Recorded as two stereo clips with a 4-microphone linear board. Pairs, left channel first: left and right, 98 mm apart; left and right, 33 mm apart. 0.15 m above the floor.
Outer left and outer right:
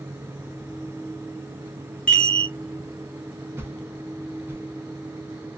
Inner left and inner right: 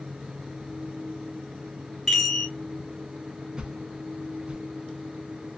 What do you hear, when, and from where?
2.1 s a chime: 10° left (ahead or behind), 1.9 m
3.6 s a whoosh: 25° right (ahead or behind), 0.6 m